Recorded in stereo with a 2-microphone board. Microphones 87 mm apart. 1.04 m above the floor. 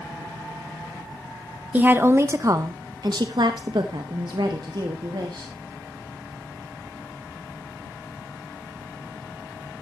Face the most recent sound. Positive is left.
turn(degrees=-55)  # may be behind; listen again after turning